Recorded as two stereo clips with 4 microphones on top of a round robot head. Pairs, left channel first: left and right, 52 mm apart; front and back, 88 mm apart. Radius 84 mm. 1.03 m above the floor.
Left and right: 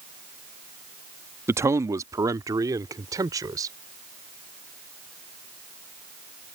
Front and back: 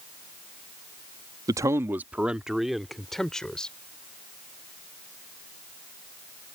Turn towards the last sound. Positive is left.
turn(degrees=-80)